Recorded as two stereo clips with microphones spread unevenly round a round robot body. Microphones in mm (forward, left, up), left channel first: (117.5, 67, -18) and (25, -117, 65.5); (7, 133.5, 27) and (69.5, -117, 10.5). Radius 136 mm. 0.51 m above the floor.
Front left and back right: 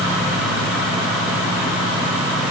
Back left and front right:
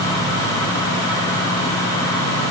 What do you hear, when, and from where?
Only background noise.